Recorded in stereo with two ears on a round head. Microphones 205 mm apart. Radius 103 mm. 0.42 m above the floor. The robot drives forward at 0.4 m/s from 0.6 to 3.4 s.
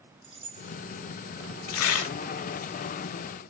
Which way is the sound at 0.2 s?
25° right (ahead or behind).